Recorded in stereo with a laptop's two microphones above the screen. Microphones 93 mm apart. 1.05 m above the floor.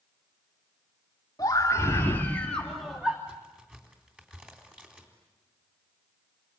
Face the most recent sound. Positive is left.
turn(degrees=-15)  # may be behind; listen again after turning